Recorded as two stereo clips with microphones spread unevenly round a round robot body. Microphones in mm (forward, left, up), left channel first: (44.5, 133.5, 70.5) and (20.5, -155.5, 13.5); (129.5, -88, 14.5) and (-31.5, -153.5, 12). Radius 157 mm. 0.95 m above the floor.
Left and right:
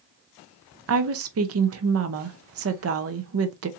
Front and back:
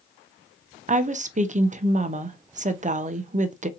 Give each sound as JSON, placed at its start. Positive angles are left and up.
{"t": 0.9, "sound": "a woman speaking", "azimuth_deg": -115, "distance_m": 0.7}